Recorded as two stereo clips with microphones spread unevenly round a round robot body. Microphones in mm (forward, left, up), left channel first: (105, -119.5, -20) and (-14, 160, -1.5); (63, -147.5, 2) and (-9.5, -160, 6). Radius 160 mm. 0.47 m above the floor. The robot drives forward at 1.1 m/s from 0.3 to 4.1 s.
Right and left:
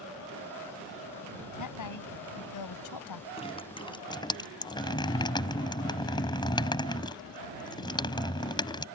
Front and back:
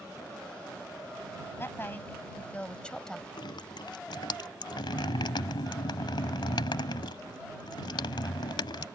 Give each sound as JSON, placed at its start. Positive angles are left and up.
{"t": 1.6, "sound": "a woman speaking", "azimuth_deg": -45}
{"t": 3.4, "sound": "dripping", "azimuth_deg": 5}